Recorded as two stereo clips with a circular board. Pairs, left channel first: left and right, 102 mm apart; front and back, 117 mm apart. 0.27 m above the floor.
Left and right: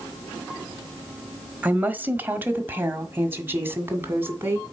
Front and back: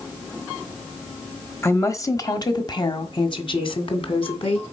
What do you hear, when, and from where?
1.6 s a woman speaking: 35° right, 1.1 m; by 4.6 s 25° right, 2.5 m